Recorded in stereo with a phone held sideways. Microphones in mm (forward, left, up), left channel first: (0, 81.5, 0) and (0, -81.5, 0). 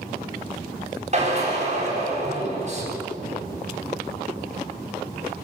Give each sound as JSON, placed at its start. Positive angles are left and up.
{"t": 1.1, "sound": "a drill", "side_deg": -45, "distance_m": 9.0}